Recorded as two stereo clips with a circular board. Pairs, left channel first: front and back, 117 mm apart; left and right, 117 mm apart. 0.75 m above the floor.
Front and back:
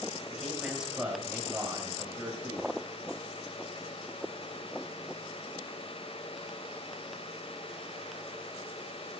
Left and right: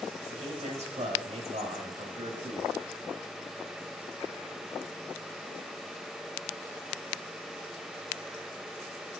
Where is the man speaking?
90° right, 4.5 m; by 2.8 s 110° right, 5 m.